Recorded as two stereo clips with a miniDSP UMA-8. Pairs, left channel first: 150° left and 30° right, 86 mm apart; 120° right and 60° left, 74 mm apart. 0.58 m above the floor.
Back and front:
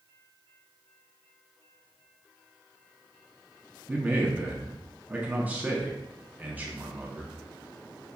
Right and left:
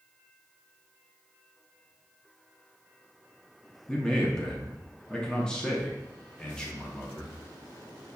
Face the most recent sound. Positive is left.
turn(degrees=-60)